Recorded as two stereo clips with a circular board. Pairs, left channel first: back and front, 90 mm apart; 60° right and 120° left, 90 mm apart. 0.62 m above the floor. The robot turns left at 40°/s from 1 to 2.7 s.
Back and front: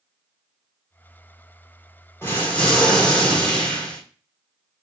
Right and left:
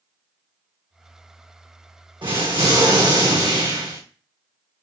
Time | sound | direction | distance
2.2 | an explosion | 120° left | 1.1 m